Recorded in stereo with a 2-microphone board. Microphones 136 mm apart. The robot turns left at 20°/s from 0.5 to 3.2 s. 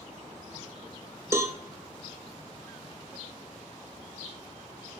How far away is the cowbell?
About 0.7 m.